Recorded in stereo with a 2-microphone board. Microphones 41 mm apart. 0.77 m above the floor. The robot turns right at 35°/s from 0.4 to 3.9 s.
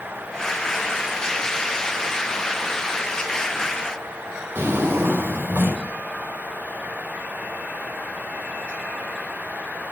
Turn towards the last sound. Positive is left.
turn(degrees=-50)  # may be behind; listen again after turning